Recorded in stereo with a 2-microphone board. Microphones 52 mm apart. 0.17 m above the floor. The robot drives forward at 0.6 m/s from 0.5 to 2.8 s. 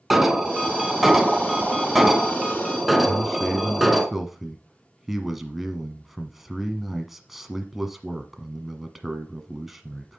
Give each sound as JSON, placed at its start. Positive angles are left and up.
{"t": 0.1, "sound": "an alarm", "side_deg": -5, "distance_m": 0.9}
{"t": 3.1, "sound": "a man speaking", "side_deg": -5, "distance_m": 1.3}